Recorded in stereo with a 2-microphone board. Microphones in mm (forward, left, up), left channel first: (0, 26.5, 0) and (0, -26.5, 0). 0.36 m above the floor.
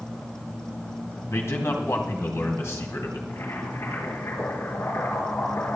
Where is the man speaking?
65° left (ahead or behind), 2.5 m.